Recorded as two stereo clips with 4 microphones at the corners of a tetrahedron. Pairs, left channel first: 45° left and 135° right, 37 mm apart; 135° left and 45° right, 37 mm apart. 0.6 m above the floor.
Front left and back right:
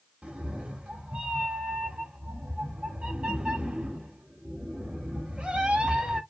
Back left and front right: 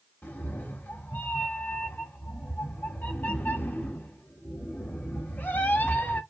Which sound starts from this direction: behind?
A cat meowing, at 0.2 s.